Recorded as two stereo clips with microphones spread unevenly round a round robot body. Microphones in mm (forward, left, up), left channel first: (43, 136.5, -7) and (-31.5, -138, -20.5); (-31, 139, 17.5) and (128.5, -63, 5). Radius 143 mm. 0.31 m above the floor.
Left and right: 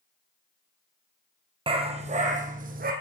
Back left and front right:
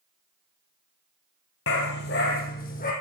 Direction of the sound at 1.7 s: Straight behind.